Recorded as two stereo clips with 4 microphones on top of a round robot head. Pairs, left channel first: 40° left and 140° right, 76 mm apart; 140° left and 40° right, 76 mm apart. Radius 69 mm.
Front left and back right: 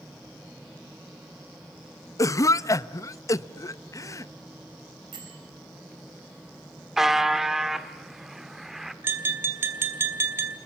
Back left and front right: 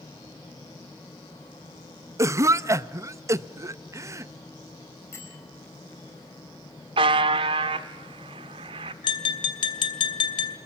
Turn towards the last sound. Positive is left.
turn(degrees=160)